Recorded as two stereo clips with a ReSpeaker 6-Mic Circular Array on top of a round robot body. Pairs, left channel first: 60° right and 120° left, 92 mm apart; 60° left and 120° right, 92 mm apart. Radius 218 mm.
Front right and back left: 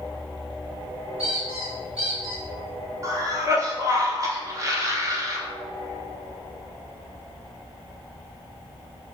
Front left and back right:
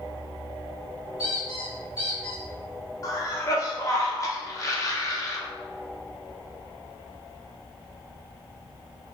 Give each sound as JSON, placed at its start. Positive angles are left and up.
{"t": 1.2, "sound": "a squeak", "azimuth_deg": 120, "distance_m": 1.5}
{"t": 3.0, "sound": "a cough", "azimuth_deg": 90, "distance_m": 1.0}